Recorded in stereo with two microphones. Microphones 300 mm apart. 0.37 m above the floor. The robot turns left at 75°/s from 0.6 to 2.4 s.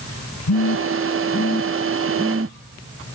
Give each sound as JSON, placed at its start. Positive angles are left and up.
{"t": 0.5, "sound": "a phone buzzing", "side_deg": 70, "distance_m": 0.7}